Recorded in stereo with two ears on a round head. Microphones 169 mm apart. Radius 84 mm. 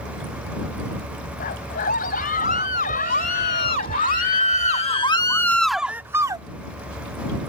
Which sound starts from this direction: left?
A scream, at 1.4 s.